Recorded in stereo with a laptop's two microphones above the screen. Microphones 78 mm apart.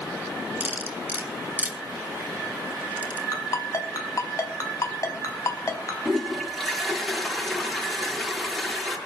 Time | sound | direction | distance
0.6 | cutlery clinking | 20° right (ahead or behind) | 3 m
3.3 | a ringtone | 45° left (ahead or behind) | 4 m
6.0 | a toilet flushing | centre (ahead or behind) | 6.5 m